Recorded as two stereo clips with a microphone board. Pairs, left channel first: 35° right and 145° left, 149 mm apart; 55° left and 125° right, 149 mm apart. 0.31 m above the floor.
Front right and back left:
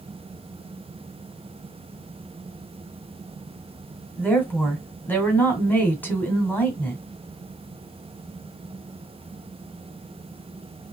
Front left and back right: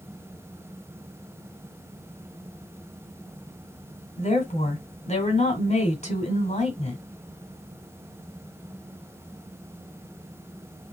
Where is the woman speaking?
40° left, 1.8 m.